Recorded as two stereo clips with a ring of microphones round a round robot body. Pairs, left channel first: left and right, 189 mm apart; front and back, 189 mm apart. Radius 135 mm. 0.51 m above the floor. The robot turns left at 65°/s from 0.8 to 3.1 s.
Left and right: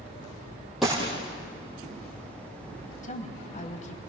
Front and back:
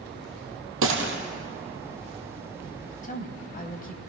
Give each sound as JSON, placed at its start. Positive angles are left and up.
{"t": 0.8, "sound": "a gunshot", "azimuth_deg": 180, "distance_m": 3.5}
{"t": 3.0, "sound": "a woman speaking", "azimuth_deg": 45, "distance_m": 3.0}